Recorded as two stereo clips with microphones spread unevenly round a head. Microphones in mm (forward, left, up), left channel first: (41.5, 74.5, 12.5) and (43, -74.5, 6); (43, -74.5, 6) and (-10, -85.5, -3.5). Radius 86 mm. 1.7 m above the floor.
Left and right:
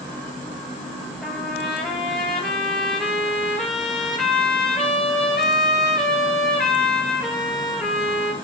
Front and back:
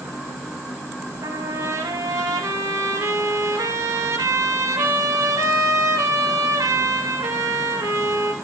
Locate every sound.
1.2 s a trumpet: 175° left, 4.5 m